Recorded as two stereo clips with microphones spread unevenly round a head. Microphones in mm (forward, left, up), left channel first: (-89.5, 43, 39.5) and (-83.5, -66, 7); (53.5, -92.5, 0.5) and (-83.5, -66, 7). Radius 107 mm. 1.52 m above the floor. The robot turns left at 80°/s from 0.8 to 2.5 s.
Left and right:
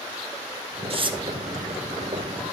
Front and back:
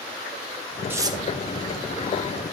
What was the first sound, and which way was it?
Tearing paper, 115° right.